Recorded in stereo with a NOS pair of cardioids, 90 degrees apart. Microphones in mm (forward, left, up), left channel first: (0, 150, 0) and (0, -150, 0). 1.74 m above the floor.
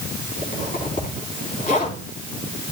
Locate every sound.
0.4 s a zipper: 25° left, 4 m